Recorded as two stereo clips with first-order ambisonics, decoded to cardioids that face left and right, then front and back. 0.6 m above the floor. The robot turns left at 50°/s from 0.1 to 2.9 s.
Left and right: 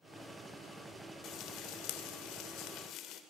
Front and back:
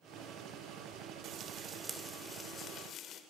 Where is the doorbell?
No doorbell in this recording.